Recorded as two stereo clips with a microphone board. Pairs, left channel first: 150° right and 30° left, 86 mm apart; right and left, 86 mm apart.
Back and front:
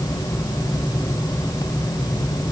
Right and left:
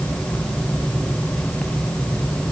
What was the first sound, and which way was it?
Only background noise.